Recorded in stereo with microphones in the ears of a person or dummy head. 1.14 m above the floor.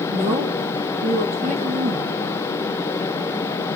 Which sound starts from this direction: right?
A woman speaking, at 0.1 s.